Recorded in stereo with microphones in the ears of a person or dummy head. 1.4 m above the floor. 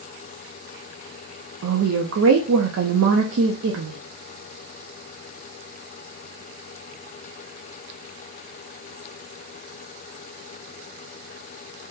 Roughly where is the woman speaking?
Right.